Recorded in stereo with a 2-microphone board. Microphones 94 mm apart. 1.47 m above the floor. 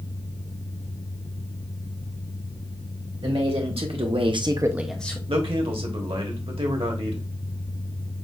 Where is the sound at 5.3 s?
75° right (ahead or behind), 1.2 m.